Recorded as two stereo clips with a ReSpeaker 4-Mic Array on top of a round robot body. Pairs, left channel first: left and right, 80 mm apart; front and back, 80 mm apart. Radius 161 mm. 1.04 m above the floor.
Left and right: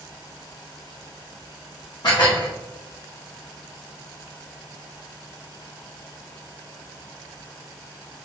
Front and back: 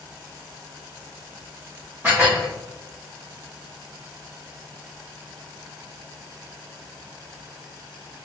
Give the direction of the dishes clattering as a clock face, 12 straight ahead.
8 o'clock.